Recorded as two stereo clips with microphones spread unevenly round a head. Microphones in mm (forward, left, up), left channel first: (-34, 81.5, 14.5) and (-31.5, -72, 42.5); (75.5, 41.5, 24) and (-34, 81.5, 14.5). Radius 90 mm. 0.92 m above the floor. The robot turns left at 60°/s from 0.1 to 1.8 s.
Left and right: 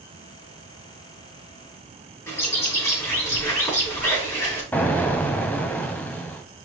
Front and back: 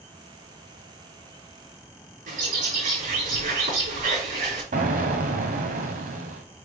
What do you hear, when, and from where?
2.3 s a bird: 165° left, 5 m
4.7 s an explosion: 175° left, 1.3 m